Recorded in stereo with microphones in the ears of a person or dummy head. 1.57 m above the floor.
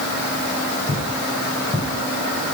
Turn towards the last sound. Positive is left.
turn(degrees=10)  # may be behind; listen again after turning